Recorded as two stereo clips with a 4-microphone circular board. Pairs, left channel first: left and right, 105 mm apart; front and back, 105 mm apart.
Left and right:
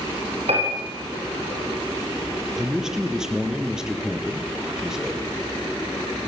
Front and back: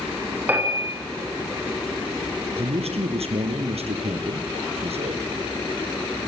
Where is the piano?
105° right, 8.5 m.